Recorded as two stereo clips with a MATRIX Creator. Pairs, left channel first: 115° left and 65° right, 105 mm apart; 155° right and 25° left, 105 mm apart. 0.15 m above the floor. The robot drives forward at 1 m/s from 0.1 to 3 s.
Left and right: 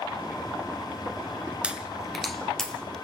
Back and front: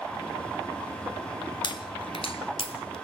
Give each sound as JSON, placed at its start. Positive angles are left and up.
{"t": 1.6, "sound": "a pop", "azimuth_deg": -145, "distance_m": 1.3}